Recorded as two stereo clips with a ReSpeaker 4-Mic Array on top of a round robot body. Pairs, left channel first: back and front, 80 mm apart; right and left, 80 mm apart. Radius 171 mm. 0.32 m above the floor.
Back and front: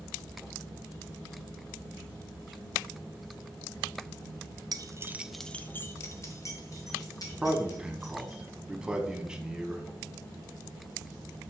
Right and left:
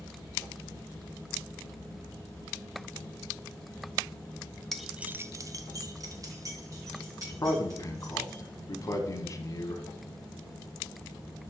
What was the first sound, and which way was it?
Keys jangling, 5° right.